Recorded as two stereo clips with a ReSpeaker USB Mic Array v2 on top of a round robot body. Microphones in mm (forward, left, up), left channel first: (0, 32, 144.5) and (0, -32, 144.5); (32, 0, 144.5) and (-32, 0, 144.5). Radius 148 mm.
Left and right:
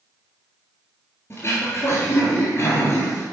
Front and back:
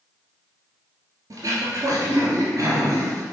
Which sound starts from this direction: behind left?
Throat clearing, at 1.3 s.